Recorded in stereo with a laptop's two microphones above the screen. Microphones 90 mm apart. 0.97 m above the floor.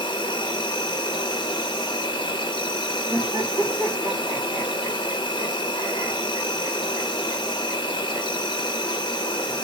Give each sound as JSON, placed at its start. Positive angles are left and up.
{"t": 0.0, "sound": "an insect", "side_deg": 60, "distance_m": 0.7}
{"t": 3.1, "sound": "laughter", "side_deg": -50, "distance_m": 1.7}